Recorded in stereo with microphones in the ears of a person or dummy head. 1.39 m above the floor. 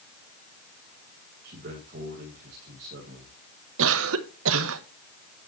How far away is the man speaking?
About 2.5 m.